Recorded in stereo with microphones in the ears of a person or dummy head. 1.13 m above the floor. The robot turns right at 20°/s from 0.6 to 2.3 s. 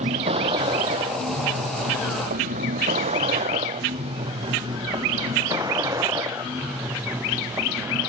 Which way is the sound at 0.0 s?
35° right (ahead or behind).